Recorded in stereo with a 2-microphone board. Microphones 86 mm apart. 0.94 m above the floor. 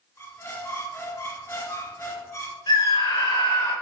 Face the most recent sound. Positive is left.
turn(degrees=70)  # may be behind; listen again after turning